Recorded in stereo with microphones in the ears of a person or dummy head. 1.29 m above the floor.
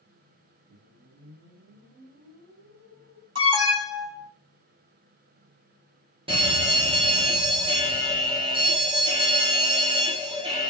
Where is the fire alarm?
25° right (ahead or behind), 1.2 m.